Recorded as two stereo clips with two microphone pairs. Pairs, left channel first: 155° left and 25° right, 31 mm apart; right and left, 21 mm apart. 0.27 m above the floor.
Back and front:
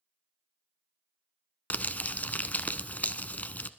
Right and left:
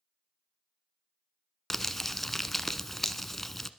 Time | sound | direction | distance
1.7 | crumpling | 170° right | 0.7 m